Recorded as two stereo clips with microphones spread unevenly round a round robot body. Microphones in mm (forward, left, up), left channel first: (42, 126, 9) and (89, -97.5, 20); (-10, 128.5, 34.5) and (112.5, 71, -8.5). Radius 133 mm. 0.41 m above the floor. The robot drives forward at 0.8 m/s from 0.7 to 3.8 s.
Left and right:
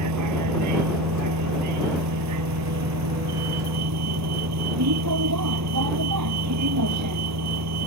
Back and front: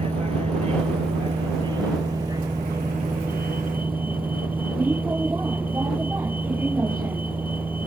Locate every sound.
0.0 s a vehicle: 95° right; by 7.9 s 110° right